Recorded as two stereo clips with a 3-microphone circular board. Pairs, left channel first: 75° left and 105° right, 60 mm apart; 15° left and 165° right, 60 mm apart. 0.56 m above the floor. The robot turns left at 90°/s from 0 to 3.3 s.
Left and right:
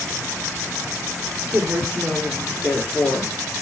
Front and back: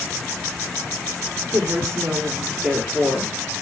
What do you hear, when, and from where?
1.5 s a woman speaking: 145° right, 1.8 m; by 3.3 s 55° left, 1.8 m